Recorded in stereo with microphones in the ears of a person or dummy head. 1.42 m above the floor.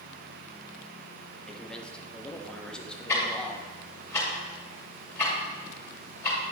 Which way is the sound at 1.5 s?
5° left (ahead or behind).